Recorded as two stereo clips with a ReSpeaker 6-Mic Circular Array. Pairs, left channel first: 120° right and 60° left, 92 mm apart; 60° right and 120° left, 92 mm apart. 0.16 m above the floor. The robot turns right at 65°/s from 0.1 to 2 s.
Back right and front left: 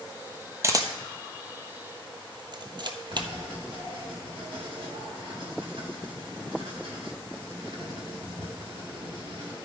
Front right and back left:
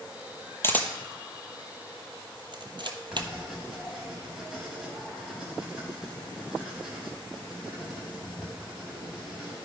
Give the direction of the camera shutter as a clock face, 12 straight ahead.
12 o'clock.